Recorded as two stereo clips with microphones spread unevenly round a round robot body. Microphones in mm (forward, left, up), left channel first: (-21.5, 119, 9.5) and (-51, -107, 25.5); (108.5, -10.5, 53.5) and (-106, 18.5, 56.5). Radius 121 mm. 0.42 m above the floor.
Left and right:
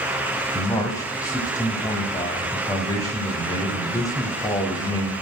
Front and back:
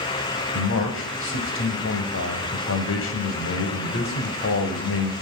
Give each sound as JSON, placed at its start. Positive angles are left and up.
{"t": 0.5, "sound": "a man speaking", "azimuth_deg": 10, "distance_m": 2.5}